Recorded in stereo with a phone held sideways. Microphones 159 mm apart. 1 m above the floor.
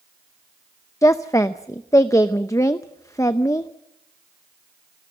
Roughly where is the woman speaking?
Centre.